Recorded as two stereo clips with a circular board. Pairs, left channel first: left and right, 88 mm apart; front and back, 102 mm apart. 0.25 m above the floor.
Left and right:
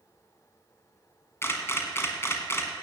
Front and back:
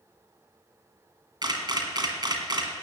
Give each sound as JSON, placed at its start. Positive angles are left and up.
{"t": 1.4, "sound": "a camera shutter", "azimuth_deg": 145, "distance_m": 1.9}